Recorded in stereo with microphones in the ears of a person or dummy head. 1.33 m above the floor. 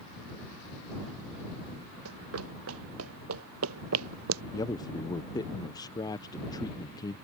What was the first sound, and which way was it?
Running footsteps, 75° right (ahead or behind).